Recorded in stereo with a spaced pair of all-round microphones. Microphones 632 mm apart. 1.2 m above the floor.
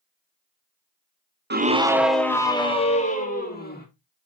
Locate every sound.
1.5 s a scream: 20° right (ahead or behind), 0.6 m; by 3.9 s 15° left (ahead or behind), 2 m